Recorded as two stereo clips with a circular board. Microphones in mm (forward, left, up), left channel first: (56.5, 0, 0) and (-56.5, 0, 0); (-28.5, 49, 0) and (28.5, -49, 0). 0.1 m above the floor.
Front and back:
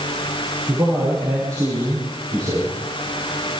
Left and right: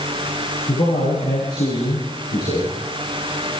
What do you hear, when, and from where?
0.7 s a man speaking: 125° left, 9 m; by 2.8 s 130° left, 11.5 m